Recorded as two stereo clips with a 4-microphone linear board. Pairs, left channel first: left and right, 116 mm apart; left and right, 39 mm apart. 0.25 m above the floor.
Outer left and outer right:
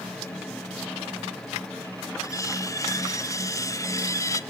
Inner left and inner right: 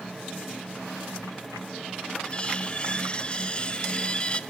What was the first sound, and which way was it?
Cutlery clinking, 30° left (ahead or behind).